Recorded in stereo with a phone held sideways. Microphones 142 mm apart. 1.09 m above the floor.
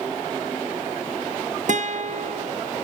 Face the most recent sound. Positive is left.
turn(degrees=-60)  # may be behind; listen again after turning